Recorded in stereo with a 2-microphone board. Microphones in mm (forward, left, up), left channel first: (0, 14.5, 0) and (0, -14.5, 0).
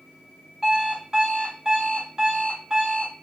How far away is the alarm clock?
About 1.7 m.